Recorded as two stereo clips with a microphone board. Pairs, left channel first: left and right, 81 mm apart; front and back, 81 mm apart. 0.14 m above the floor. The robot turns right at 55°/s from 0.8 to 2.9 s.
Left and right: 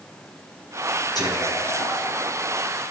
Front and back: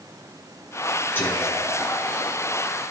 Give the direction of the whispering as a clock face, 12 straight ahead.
10 o'clock.